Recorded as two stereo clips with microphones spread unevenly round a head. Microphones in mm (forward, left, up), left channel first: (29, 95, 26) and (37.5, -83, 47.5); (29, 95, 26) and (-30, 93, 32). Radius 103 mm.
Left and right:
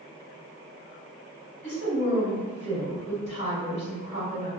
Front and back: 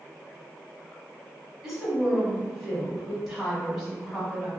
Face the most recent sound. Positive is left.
turn(degrees=95)